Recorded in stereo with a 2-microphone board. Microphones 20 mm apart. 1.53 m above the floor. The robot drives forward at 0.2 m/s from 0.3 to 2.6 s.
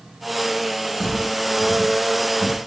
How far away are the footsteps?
About 1.8 m.